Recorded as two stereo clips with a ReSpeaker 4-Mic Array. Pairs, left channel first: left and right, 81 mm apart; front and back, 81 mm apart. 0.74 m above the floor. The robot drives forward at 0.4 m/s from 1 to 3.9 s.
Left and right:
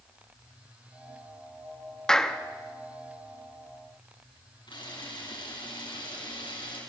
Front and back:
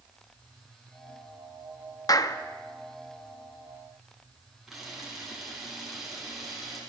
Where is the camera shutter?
95° left, 6.5 m.